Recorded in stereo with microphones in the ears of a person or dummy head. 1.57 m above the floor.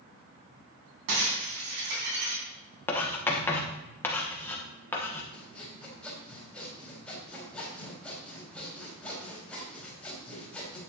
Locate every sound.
1.1 s breaking glass: 60° right (ahead or behind), 3.5 m
2.9 s writing: 20° left (ahead or behind), 1.4 m
5.3 s sawing: 10° left (ahead or behind), 4 m